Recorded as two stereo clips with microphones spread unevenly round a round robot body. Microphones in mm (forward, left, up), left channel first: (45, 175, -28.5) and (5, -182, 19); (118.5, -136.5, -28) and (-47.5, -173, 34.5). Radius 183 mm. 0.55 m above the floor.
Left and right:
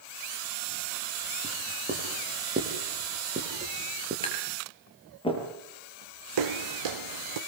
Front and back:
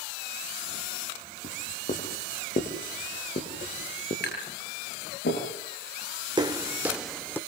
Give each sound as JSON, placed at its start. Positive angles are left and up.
{"t": 1.4, "sound": "writing", "azimuth_deg": -30, "distance_m": 7.0}
{"t": 4.2, "sound": "tapping", "azimuth_deg": 10, "distance_m": 9.5}
{"t": 6.4, "sound": "footsteps", "azimuth_deg": -110, "distance_m": 2.5}